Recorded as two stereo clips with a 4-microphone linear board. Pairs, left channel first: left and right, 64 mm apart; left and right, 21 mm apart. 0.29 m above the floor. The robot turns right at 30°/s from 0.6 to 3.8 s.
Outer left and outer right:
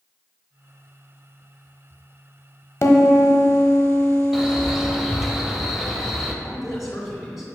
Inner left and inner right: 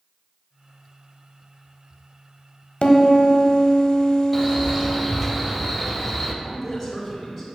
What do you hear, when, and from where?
2.8 s a piano: 45° left (ahead or behind), 0.7 m; by 4.9 s 30° left (ahead or behind), 0.7 m
4.3 s a man speaking: 5° right (ahead or behind), 0.9 m
6.4 s a man speaking: centre (ahead or behind), 2.5 m